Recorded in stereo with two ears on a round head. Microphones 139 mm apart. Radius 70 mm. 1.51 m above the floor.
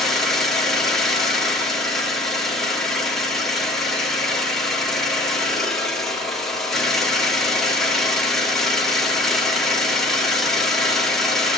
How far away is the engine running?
About 1.9 m.